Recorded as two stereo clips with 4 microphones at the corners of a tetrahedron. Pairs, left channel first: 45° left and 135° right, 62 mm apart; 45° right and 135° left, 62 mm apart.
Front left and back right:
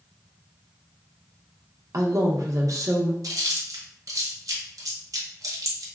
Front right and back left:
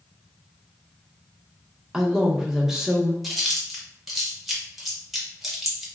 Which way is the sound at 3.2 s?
140° right.